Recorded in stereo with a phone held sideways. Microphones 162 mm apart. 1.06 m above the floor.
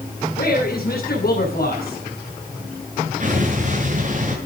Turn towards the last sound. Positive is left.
turn(degrees=-50)  # may be behind; listen again after turning